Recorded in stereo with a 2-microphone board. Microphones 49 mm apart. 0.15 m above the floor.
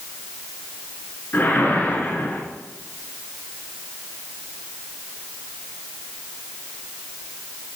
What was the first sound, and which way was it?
A whoosh, 40° left (ahead or behind).